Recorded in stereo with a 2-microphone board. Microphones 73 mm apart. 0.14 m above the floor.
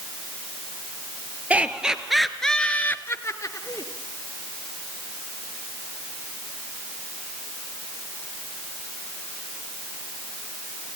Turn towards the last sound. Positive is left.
turn(degrees=55)  # may be behind; listen again after turning